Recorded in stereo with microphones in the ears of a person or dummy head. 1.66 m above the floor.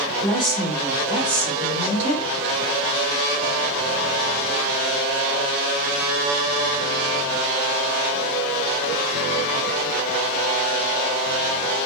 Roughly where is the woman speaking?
Centre.